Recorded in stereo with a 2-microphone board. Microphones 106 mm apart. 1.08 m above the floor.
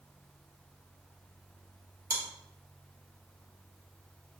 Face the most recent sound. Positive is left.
turn(degrees=-35)  # may be behind; listen again after turning